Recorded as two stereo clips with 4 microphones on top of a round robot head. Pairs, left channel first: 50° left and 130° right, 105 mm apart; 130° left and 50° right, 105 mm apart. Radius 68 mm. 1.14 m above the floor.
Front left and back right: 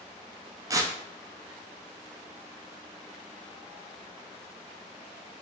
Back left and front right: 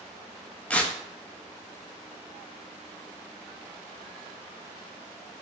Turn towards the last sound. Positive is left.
turn(degrees=-160)